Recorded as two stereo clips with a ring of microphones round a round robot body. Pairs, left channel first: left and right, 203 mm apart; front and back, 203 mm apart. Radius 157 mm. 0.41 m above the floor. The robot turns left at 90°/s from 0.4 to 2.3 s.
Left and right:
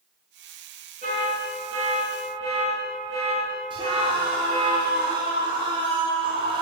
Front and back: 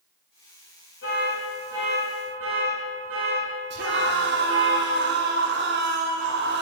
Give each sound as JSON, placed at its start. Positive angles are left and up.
{"t": 1.0, "sound": "an alarm", "azimuth_deg": -40, "distance_m": 4.5}
{"t": 3.7, "sound": "a scream", "azimuth_deg": -155, "distance_m": 1.8}